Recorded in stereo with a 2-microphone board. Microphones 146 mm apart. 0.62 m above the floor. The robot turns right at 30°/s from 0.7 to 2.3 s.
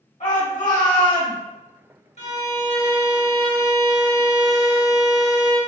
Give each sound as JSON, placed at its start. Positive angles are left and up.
{"t": 0.2, "sound": "a shout", "side_deg": 55, "distance_m": 2.0}
{"t": 2.2, "sound": "a violin", "side_deg": 45, "distance_m": 1.4}